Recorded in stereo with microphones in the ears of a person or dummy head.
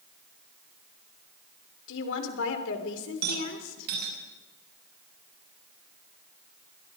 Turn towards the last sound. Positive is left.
turn(degrees=-55)  # may be behind; listen again after turning